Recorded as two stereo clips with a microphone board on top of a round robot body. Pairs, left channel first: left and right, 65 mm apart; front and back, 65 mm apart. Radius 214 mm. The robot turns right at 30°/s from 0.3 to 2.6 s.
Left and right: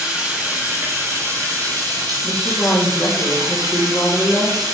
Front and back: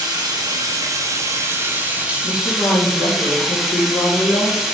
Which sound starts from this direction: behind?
Running water, at 0.0 s.